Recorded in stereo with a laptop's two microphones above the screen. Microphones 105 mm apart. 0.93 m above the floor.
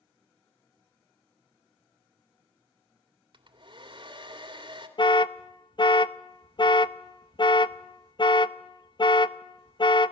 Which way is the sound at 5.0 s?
50° left (ahead or behind).